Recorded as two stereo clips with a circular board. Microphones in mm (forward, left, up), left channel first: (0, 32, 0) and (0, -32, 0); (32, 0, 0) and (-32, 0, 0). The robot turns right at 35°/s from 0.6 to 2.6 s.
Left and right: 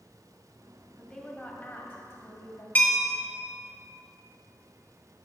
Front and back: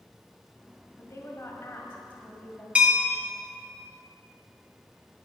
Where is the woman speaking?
20° left, 2 m; by 2.6 s 75° left, 2 m.